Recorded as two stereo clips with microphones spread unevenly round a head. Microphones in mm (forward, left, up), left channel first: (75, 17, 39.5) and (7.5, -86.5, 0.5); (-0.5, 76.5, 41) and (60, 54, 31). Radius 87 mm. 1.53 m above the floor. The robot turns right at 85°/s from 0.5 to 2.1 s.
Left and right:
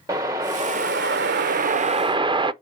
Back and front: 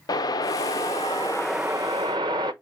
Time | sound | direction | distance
0.1 | a whoosh | 160° left | 0.7 m